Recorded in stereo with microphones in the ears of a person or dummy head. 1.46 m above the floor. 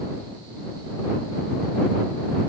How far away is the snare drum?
No snare drum in this recording.